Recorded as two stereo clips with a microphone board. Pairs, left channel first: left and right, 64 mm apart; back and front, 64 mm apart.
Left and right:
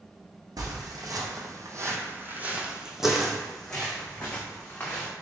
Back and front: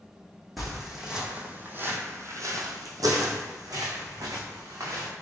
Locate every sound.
0.6 s footsteps: 90° right, 1.1 m; by 5.1 s 25° left, 1.8 m